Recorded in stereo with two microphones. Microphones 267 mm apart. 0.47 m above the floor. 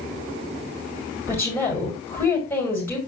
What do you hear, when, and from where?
1.3 s a woman speaking: 10° left (ahead or behind), 6 m